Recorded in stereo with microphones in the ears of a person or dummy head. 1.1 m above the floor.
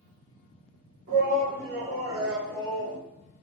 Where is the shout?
40° right (ahead or behind), 1.9 m; by 3.0 s 45° left (ahead or behind), 0.8 m.